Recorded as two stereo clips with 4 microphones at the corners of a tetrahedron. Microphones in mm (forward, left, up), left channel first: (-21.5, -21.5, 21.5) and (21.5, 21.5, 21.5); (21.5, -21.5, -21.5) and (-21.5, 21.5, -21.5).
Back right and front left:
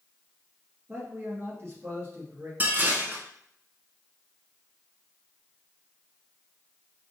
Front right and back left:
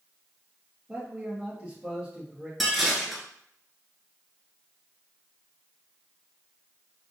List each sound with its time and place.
0.9 s a man speaking: 75° left, 1.8 m
2.6 s dishes clattering: 50° left, 0.9 m